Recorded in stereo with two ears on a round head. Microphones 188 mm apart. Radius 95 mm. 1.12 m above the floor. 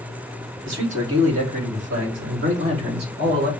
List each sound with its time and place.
0.7 s a man speaking: 75° right (ahead or behind), 3.5 m; by 3.5 s 45° right (ahead or behind), 2.5 m